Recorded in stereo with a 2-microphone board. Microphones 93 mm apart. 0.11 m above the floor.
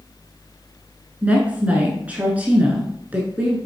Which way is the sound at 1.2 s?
15° right (ahead or behind).